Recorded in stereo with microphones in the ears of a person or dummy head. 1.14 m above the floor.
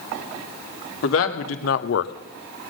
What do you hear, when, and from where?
1.0 s a man speaking: 80° left, 1.7 m; by 2.1 s 60° left (ahead or behind), 0.5 m